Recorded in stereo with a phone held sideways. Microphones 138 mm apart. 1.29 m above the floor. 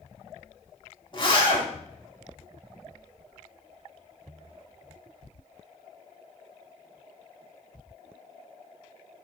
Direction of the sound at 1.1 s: 35° left (ahead or behind).